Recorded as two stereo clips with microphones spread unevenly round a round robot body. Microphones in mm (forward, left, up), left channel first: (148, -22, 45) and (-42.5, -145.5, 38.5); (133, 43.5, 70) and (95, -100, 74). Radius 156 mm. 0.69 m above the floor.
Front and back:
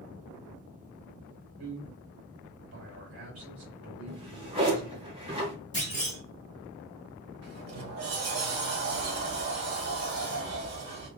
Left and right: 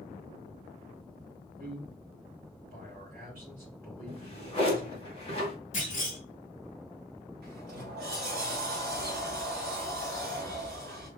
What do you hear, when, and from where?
1.6 s a man speaking: 140° right, 2 m
4.1 s a drawer: 140° left, 1.0 m
5.7 s a clunk: 135° left, 1.6 m
7.4 s a sliding door: 140° right, 1.3 m